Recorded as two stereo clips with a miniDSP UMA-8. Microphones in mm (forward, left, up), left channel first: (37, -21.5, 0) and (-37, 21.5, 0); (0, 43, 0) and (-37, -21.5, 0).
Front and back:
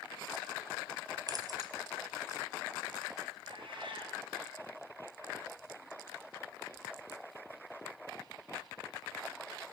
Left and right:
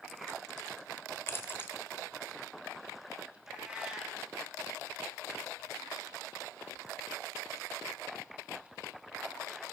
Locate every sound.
1.3 s keys jangling: 115° left, 1.2 m
3.5 s a cat meowing: 160° left, 2.5 m